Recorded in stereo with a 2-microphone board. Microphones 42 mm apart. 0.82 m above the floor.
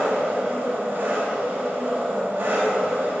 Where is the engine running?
45° right (ahead or behind), 3.5 m.